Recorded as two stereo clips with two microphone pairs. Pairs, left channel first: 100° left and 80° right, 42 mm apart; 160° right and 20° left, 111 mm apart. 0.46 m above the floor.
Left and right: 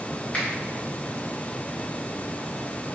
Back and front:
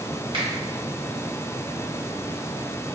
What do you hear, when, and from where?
0.3 s a finger snap: 45° left, 1.9 m